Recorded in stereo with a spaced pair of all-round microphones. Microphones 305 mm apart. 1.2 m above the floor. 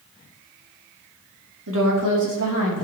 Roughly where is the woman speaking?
Right.